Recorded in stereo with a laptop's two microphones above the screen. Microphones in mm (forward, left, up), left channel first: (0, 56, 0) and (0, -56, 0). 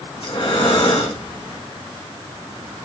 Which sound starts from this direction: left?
Breathing, at 0.2 s.